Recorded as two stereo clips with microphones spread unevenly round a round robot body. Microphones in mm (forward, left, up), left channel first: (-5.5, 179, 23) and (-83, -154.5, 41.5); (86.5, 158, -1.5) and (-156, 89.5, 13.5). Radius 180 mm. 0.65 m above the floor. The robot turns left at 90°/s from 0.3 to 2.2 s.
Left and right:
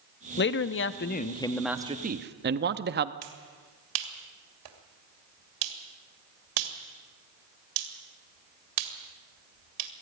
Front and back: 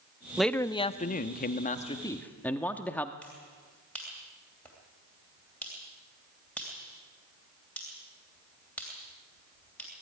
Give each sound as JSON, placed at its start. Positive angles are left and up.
{"t": 0.4, "sound": "a man speaking", "azimuth_deg": 105, "distance_m": 0.9}
{"t": 3.2, "sound": "a finger snap", "azimuth_deg": -70, "distance_m": 2.5}